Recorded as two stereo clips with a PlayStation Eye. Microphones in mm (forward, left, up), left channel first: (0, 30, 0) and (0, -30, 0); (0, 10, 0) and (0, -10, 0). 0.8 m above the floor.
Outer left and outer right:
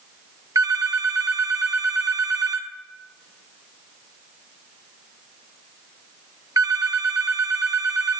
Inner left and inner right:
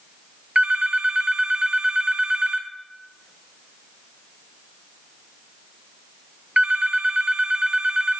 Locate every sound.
0.6 s a phone ringing: 75° right (ahead or behind), 0.8 m